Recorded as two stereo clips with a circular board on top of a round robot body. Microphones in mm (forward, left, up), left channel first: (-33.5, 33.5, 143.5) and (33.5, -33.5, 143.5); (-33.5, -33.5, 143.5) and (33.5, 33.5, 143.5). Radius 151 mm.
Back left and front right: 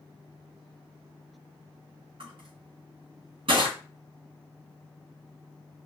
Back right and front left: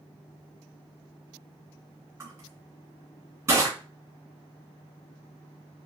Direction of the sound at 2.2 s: 15° right.